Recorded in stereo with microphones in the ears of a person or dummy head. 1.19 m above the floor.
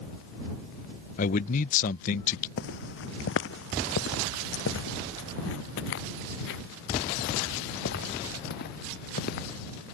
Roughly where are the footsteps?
Left.